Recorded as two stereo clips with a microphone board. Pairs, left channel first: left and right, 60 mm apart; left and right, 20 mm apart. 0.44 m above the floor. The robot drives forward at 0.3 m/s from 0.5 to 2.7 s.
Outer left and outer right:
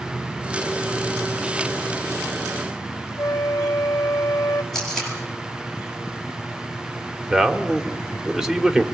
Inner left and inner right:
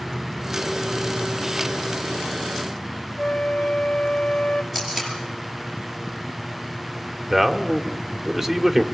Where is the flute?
70° left (ahead or behind), 1.1 m.